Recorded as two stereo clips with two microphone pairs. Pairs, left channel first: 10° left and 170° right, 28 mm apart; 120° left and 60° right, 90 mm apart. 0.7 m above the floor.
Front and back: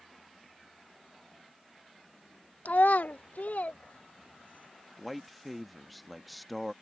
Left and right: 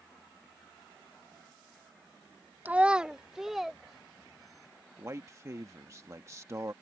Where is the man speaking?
75° right.